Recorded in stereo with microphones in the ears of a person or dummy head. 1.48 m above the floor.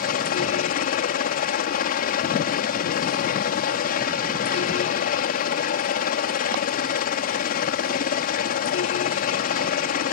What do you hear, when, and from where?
0.0 s a helicopter: 50° left (ahead or behind)